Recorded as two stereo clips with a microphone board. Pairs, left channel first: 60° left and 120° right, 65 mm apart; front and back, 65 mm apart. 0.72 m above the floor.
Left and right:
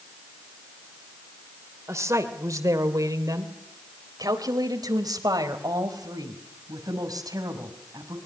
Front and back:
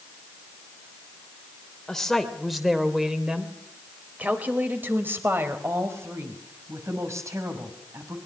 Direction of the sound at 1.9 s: 85° right.